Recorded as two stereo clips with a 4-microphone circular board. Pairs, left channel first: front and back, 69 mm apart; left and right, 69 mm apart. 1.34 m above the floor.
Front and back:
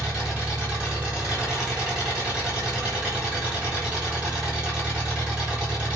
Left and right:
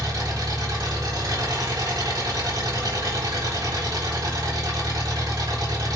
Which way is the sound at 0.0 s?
105° right.